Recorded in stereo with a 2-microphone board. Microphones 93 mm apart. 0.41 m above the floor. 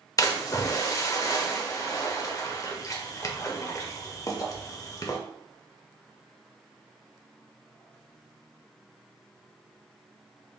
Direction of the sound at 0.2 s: 35° left (ahead or behind).